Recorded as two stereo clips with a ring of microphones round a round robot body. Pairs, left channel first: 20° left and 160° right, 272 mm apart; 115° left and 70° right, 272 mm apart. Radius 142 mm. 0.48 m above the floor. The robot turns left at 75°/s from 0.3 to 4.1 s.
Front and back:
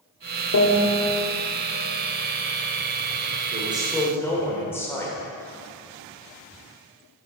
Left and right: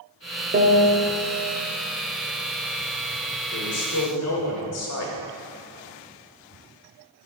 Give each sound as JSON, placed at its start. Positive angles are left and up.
{"t": 0.5, "sound": "a piano", "azimuth_deg": -10, "distance_m": 0.9}
{"t": 3.5, "sound": "a man speaking", "azimuth_deg": 145, "distance_m": 1.5}